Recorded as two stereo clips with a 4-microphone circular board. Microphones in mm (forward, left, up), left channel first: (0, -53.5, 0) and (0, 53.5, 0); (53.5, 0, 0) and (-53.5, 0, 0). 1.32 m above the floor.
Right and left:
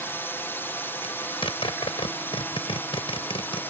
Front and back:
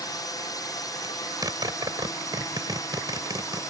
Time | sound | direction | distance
0.0 | a drone | 30° right | ?
1.0 | a zipper | 125° right | ?